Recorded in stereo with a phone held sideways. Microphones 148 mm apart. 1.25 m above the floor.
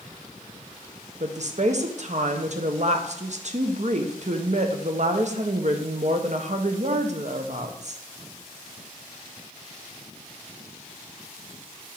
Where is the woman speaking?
50° right (ahead or behind), 0.8 m.